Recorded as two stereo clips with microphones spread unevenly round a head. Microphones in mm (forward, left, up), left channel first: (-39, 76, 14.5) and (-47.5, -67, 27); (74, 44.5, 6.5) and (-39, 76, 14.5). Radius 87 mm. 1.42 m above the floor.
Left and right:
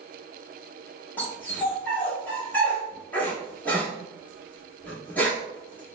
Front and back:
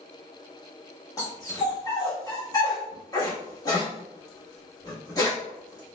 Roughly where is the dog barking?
Ahead.